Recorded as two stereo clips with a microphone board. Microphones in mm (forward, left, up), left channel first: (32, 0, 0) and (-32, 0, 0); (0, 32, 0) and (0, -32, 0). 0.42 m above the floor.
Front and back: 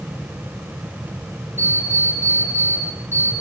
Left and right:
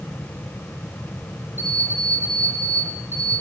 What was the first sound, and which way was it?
An alarm clock, 130° left.